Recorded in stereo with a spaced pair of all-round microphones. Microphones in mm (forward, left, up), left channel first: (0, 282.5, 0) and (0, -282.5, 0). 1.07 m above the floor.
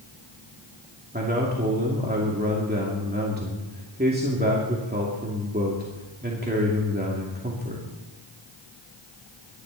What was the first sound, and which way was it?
A man speaking, 15° right (ahead or behind).